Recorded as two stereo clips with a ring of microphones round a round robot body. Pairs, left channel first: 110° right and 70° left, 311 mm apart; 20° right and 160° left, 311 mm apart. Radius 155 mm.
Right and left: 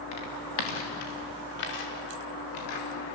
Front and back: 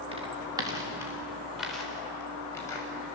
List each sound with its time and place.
0.1 s footsteps: 130° right, 5 m; by 3.2 s 100° right, 6.5 m